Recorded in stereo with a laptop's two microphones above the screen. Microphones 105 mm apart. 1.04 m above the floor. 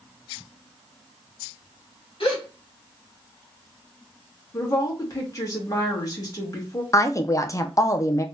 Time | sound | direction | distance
2.2 | a gasp | 60° left (ahead or behind) | 1.3 m
4.5 | a woman speaking | 35° left (ahead or behind) | 1.6 m
6.9 | a woman speaking | 30° left (ahead or behind) | 0.5 m